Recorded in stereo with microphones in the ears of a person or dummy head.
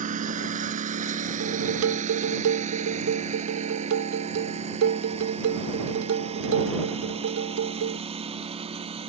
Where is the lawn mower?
45° right (ahead or behind); by 9.1 s 35° right (ahead or behind).